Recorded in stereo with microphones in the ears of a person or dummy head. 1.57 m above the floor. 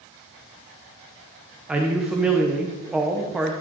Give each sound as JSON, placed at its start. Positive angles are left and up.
{"t": 1.7, "sound": "a man speaking", "side_deg": -5, "distance_m": 1.0}